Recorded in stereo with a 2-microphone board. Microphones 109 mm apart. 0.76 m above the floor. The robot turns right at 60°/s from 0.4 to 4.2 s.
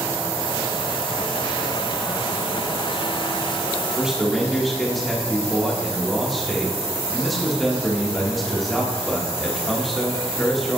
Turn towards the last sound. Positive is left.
turn(degrees=0)  # may be behind; listen again after turning